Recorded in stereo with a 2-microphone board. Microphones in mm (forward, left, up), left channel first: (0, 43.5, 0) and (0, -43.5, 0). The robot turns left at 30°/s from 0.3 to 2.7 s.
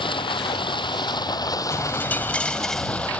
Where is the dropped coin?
35° left; by 3.1 s 5° left.